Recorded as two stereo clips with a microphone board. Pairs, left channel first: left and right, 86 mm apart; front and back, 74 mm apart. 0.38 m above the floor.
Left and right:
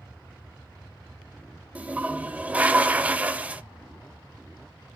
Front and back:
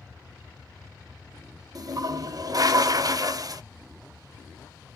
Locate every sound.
1.8 s a toilet flushing: 160° right, 0.5 m